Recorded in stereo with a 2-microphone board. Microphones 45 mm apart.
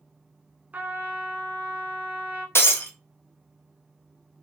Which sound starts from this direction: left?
Breaking glass, at 2.5 s.